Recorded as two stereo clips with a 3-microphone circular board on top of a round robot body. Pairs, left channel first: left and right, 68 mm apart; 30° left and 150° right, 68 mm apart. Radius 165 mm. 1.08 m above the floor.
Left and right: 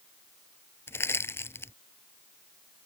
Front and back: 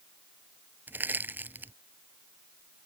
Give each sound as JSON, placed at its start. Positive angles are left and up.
{"t": 0.9, "sound": "crushing", "azimuth_deg": 145}